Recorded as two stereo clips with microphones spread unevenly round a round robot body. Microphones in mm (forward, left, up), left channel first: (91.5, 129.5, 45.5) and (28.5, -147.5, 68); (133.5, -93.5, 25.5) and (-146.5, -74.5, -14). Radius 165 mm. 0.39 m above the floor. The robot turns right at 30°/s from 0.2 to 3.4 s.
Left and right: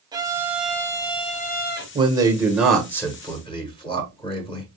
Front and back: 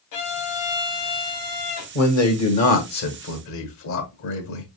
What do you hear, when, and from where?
0.1 s a violin: 25° right, 0.9 m; by 1.9 s 25° left, 0.9 m
1.9 s a man speaking: 30° right, 1.3 m; by 4.7 s 15° left, 1.3 m